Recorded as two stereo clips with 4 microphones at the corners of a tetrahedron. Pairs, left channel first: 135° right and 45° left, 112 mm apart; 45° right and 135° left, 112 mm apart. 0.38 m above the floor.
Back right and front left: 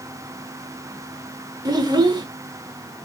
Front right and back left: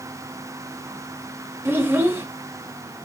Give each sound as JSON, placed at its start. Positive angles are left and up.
{"t": 1.6, "sound": "a child speaking", "azimuth_deg": 75, "distance_m": 0.6}